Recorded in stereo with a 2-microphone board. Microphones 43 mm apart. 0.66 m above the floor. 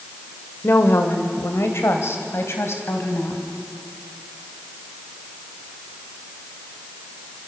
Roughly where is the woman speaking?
Left.